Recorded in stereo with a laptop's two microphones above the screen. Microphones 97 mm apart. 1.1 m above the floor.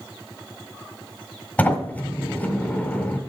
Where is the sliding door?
15° left (ahead or behind), 1.7 m.